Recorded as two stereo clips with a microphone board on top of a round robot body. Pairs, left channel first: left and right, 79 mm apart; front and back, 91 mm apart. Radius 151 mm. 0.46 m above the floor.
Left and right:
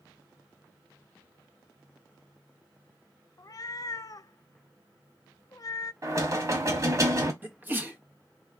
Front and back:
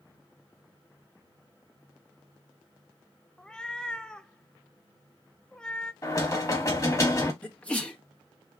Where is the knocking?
50° right, 1.8 m.